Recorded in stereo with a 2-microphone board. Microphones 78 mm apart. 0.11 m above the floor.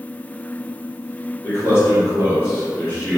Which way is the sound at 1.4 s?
30° left (ahead or behind).